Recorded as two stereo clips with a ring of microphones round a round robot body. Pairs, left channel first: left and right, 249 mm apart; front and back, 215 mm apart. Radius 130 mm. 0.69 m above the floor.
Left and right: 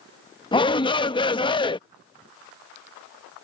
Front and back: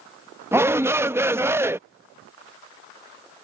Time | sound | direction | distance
0.5 | a shout | 120° left | ?